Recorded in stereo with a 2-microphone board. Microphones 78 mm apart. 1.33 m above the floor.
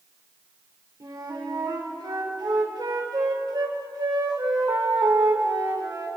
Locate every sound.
1.0 s a flute: 65° right (ahead or behind), 3 m